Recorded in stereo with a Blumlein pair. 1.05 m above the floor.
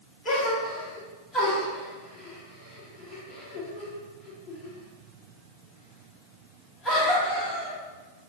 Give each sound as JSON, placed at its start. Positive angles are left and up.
{"t": 0.2, "sound": "a gasp", "azimuth_deg": 15, "distance_m": 1.1}